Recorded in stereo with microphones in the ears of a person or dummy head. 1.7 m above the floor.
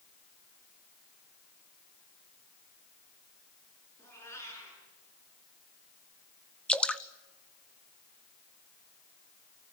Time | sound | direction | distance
4.0 | a cat meowing | 15° left (ahead or behind) | 7.5 m
6.7 | dripping | 5° left (ahead or behind) | 0.7 m